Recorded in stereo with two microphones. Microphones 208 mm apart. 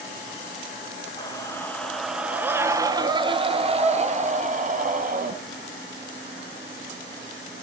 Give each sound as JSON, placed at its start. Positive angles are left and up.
{"t": 1.2, "sound": "a scream", "side_deg": 20, "distance_m": 1.9}